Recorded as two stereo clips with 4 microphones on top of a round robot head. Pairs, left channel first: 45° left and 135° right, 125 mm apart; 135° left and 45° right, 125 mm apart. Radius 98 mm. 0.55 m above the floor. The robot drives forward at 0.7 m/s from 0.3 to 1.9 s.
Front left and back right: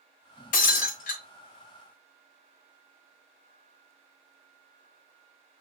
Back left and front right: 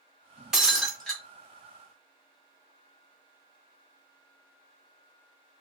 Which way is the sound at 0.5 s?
40° left.